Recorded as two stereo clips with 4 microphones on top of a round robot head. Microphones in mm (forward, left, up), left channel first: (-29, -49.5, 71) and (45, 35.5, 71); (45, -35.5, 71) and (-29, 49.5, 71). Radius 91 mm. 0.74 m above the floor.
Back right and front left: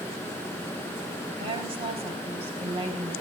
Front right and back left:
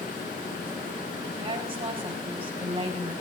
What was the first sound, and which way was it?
A woman speaking, 90° left.